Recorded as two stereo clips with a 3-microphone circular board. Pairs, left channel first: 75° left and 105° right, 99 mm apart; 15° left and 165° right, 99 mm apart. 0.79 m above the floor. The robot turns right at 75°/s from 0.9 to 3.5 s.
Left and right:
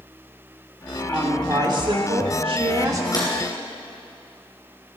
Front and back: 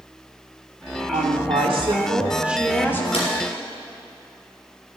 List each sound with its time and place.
1.1 s a woman speaking: 170° left, 2 m; by 3.0 s 45° right, 2 m
3.1 s a drawer: 25° left, 4.5 m; by 3.3 s 35° left, 4.5 m